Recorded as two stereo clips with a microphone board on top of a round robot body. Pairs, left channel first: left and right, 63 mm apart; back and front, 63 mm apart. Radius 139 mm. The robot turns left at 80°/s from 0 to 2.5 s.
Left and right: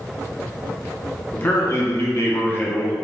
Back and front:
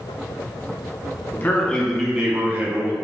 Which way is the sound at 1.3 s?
145° left.